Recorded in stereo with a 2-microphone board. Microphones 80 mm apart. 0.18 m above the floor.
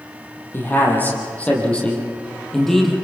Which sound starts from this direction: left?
A man speaking, at 0.5 s.